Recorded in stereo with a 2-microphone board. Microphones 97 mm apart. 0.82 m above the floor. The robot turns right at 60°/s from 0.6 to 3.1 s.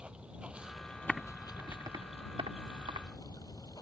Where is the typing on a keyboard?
5° left (ahead or behind); by 3.1 s 65° right (ahead or behind).